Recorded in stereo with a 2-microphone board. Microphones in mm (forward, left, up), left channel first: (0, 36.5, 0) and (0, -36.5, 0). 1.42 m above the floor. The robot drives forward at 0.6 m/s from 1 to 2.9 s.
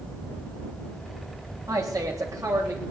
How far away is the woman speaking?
About 3 m.